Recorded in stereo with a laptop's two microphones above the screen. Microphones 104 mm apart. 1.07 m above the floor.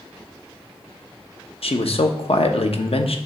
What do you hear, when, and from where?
1.6 s a man speaking: 70° left (ahead or behind), 0.9 m